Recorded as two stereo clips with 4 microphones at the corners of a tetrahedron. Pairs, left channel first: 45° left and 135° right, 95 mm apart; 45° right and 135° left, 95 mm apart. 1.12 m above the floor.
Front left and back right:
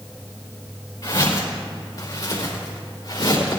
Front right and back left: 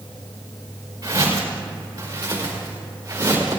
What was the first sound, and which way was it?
Footsteps, 85° left.